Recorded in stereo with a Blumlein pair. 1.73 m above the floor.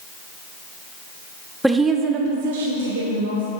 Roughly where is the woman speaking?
Ahead.